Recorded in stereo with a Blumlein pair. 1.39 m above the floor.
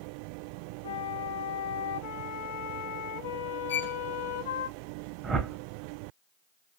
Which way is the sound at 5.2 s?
20° right.